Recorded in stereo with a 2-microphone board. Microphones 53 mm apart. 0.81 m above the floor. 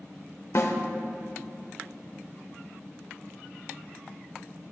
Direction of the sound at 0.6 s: 65° left (ahead or behind).